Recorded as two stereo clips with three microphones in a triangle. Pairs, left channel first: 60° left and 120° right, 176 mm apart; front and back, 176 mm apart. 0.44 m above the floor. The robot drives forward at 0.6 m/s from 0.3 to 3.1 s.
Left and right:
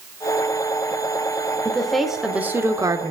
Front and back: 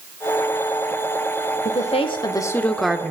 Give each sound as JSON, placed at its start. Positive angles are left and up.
{"t": 1.6, "sound": "a woman speaking", "azimuth_deg": -25, "distance_m": 1.1}